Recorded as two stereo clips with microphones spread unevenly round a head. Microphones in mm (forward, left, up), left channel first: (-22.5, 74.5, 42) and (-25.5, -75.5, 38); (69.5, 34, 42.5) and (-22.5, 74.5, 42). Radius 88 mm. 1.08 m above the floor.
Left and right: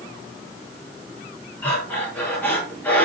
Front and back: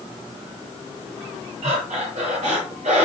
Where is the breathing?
170° left, 7.5 m.